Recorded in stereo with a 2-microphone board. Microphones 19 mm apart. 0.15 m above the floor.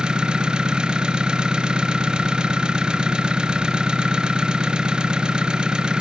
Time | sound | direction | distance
0.0 | an engine running | 60° right (ahead or behind) | 0.9 m